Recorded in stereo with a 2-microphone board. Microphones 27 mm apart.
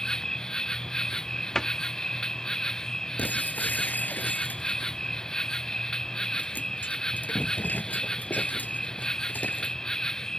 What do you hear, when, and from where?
0.0 s an insect: 25° left (ahead or behind)
1.6 s a cupboard door: 20° left (ahead or behind)
3.2 s breaking glass: 80° left